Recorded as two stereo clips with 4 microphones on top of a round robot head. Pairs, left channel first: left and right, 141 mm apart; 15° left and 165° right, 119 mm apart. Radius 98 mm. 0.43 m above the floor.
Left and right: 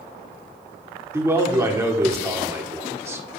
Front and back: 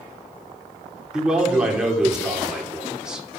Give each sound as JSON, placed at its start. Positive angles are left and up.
{"t": 1.1, "sound": "a man speaking", "azimuth_deg": -95, "distance_m": 1.4}